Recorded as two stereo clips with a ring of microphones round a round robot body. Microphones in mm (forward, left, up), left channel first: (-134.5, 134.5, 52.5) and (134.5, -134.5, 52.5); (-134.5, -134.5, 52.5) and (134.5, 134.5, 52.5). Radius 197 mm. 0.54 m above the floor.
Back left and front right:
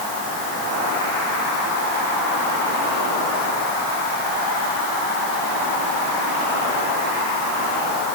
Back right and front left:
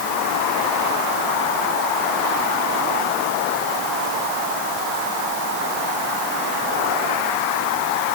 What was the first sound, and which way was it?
Only background noise.